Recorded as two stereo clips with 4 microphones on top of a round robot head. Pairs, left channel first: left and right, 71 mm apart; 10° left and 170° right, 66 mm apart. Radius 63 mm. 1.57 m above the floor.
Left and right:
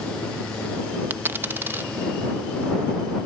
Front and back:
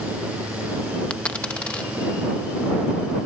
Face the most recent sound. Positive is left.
turn(degrees=-60)